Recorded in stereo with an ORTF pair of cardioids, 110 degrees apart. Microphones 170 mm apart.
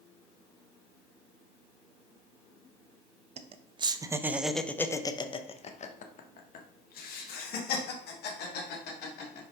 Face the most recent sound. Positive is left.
turn(degrees=75)